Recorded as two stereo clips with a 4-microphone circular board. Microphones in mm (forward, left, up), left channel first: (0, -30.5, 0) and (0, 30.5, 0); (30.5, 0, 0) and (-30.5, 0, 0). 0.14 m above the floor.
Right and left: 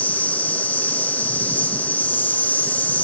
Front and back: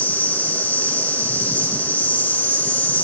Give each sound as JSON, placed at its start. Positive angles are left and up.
{"t": 0.0, "sound": "an insect", "azimuth_deg": -40, "distance_m": 2.5}